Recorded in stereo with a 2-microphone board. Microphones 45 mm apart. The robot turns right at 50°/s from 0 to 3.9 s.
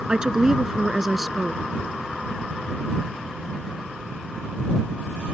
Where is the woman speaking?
15° right (ahead or behind); by 1.6 s 5° left (ahead or behind).